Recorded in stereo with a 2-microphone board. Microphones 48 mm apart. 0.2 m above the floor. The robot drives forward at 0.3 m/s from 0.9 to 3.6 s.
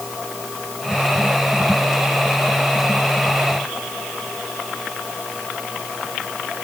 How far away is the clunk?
No clunk in this recording.